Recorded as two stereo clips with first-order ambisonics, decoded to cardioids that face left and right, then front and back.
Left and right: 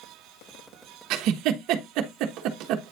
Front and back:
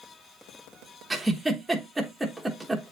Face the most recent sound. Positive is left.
turn(degrees=-95)